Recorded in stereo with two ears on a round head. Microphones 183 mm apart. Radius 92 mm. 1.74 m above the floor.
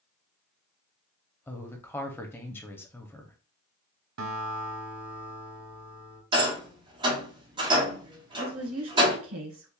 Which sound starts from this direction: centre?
A woman speaking, at 1.5 s.